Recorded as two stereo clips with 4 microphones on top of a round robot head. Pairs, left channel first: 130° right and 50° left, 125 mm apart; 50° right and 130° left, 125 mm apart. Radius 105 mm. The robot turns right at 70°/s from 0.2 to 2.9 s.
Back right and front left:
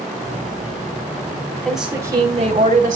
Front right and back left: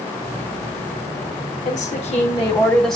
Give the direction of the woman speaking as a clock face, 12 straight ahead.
2 o'clock.